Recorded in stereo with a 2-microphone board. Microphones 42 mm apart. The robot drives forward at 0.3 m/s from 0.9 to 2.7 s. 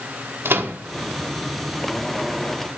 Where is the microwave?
70° right (ahead or behind), 0.8 m.